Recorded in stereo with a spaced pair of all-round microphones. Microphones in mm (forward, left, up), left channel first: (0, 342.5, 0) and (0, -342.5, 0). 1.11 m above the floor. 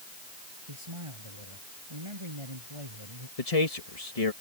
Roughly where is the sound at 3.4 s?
Left.